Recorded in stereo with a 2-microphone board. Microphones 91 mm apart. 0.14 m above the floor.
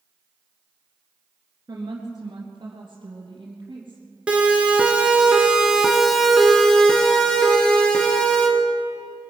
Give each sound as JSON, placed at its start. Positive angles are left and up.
{"t": 1.7, "sound": "a woman speaking", "side_deg": -45, "distance_m": 1.9}
{"t": 4.3, "sound": "a siren", "side_deg": -15, "distance_m": 2.5}